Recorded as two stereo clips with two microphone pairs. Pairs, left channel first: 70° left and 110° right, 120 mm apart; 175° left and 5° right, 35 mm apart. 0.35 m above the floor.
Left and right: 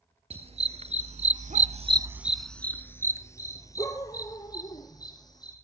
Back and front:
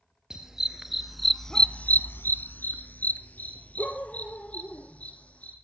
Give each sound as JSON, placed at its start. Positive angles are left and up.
{"t": 0.3, "sound": "a dog barking", "azimuth_deg": -80, "distance_m": 1.9}